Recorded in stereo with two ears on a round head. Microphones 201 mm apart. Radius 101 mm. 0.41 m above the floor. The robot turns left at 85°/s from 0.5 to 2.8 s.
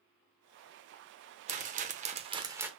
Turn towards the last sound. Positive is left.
turn(degrees=-175)